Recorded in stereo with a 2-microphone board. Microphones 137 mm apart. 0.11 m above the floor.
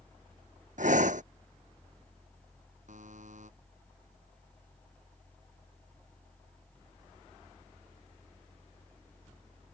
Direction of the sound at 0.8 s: 75° right (ahead or behind).